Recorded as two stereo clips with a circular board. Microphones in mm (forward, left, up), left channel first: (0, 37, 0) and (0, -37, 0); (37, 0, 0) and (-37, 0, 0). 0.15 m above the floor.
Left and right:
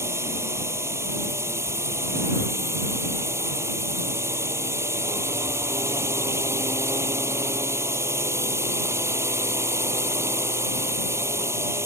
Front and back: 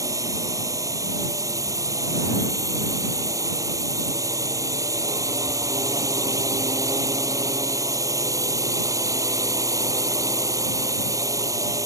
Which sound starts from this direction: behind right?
A drone, at 0.0 s.